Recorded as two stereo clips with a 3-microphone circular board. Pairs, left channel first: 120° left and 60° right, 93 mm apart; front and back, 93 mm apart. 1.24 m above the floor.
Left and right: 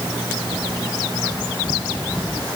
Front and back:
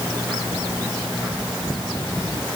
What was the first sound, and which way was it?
Only background noise.